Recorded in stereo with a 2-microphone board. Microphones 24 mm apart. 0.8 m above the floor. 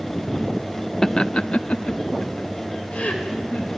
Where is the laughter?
20° left (ahead or behind), 0.6 m; by 3.7 s 65° left (ahead or behind), 3.5 m.